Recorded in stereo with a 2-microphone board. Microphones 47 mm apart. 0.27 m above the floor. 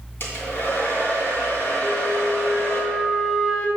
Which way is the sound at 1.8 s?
20° left (ahead or behind).